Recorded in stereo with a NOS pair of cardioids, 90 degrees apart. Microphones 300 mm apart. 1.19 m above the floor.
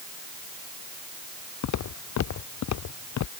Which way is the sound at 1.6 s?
65° left.